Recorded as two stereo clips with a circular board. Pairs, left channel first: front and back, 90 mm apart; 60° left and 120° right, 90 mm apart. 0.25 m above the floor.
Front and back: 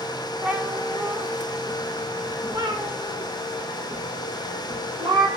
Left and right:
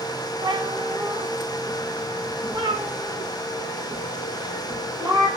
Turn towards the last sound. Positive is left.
turn(degrees=-160)